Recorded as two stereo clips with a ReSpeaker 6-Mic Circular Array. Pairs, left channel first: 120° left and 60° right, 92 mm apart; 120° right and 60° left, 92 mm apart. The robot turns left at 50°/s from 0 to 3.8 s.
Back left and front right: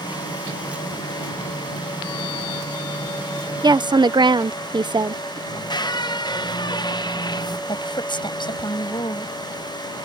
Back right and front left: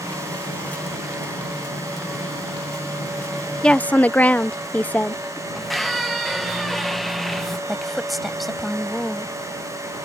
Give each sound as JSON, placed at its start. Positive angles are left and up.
{"t": 3.6, "sound": "a woman speaking", "azimuth_deg": -40}
{"t": 5.5, "sound": "a squeak", "azimuth_deg": 150}
{"t": 7.7, "sound": "a woman speaking", "azimuth_deg": 150}